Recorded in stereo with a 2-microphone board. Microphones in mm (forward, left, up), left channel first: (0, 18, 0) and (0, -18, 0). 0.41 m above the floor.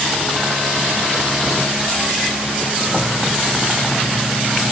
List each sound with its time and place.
Only background noise.